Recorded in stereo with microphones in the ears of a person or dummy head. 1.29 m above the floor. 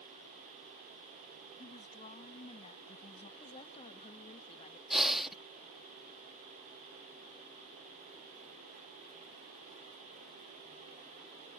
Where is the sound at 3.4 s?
40° left (ahead or behind).